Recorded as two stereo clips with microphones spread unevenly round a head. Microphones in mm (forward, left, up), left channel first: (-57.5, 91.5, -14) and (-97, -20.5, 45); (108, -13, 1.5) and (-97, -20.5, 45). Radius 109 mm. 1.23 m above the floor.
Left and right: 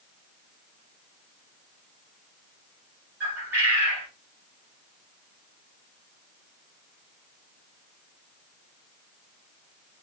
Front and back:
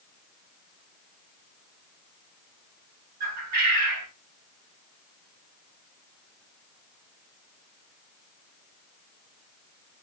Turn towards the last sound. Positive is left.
turn(degrees=180)